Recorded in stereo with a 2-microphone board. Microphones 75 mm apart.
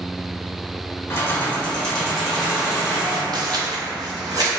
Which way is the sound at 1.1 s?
35° left (ahead or behind).